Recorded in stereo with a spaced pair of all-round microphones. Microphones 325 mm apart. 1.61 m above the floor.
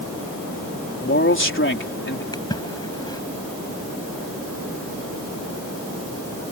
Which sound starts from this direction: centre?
A splash, at 2.3 s.